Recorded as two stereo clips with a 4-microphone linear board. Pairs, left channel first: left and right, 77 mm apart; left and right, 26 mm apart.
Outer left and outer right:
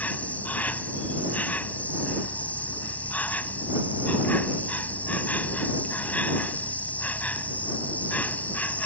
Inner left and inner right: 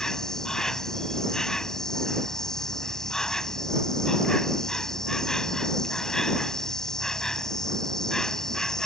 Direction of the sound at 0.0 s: 25° left (ahead or behind).